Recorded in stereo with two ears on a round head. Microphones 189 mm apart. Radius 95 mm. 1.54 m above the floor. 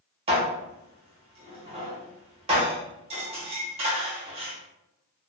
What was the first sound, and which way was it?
Dishes clattering, 30° right (ahead or behind).